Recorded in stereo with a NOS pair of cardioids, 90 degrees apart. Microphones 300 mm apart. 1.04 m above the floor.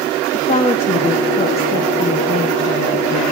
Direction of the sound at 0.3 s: 20° left.